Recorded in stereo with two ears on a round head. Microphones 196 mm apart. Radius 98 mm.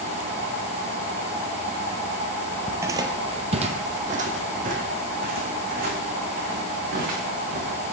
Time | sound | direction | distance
2.7 | footsteps | 10° right (ahead or behind) | 0.7 m